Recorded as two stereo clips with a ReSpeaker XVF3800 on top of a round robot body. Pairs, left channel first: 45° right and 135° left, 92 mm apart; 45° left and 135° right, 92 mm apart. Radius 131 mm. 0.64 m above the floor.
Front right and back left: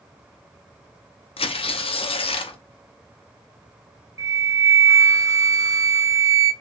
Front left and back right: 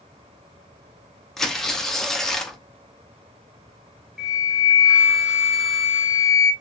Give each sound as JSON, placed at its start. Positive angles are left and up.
{"t": 1.4, "sound": "tearing paper", "azimuth_deg": -40, "distance_m": 0.7}
{"t": 4.2, "sound": "a flute", "azimuth_deg": 145, "distance_m": 1.1}